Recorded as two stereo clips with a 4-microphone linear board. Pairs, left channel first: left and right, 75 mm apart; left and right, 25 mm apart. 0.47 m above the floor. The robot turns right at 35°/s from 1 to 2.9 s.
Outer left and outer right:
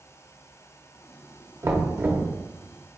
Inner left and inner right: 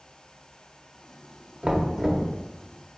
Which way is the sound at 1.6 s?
40° right (ahead or behind).